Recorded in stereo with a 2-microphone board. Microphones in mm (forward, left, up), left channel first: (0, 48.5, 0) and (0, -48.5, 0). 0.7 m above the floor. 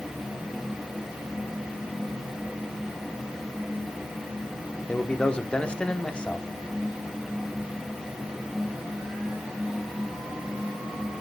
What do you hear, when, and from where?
4.9 s a man speaking: 10° left (ahead or behind), 1.2 m